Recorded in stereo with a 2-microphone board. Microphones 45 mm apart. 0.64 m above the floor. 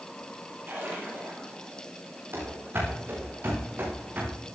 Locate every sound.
0.7 s a splash: 50° right (ahead or behind), 8.5 m
2.3 s running footsteps: 60° right (ahead or behind), 7 m; by 4.4 s 50° right (ahead or behind), 8 m